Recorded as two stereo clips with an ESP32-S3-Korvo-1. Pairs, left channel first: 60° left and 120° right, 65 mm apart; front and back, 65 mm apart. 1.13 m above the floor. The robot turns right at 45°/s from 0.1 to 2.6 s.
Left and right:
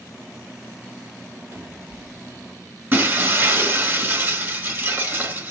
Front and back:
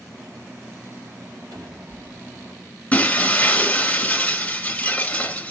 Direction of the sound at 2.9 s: 65° right.